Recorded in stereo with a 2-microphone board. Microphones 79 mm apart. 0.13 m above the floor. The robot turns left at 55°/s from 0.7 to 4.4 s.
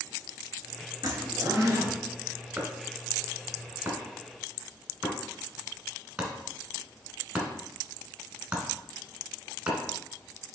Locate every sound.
1.0 s a zipper: 80° right, 1.3 m; by 2.0 s 135° right, 1.3 m
2.6 s chopping: 20° right (ahead or behind), 1.3 m; by 9.8 s 15° right (ahead or behind), 1.3 m